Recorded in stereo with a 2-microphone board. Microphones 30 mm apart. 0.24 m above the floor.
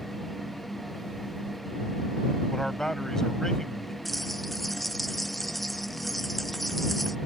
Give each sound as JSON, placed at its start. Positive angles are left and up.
{"t": 2.5, "sound": "a man speaking", "side_deg": 15}
{"t": 4.0, "sound": "a bell", "side_deg": 5}